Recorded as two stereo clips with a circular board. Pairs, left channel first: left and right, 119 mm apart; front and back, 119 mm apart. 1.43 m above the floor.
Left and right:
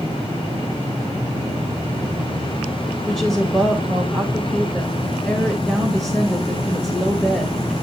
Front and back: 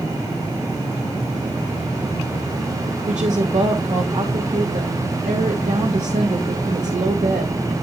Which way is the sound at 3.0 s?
Straight behind.